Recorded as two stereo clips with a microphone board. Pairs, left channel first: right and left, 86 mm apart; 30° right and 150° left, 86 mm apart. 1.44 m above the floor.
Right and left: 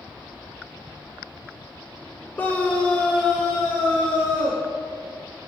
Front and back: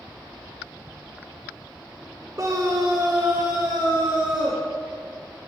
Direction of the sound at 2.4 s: 160° right.